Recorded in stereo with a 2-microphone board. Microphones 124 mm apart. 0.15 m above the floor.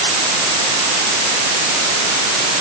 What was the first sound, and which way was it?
Only background noise.